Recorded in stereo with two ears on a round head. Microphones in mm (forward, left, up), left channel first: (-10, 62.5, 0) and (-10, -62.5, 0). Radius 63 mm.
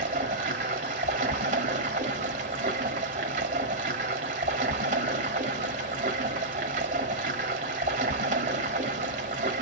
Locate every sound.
0.0 s running water: 55° right (ahead or behind), 1.5 m